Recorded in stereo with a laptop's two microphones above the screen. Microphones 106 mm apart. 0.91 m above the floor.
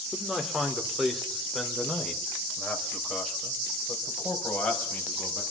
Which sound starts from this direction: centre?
A man speaking, at 0.1 s.